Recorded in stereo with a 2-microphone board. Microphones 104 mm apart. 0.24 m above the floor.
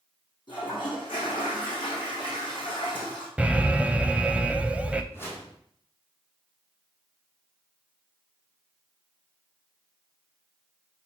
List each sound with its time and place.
0.5 s a toilet flushing: 45° left (ahead or behind), 4.5 m
3.4 s an alarm: 10° right (ahead or behind), 0.6 m
5.1 s a whoosh: 20° left (ahead or behind), 3 m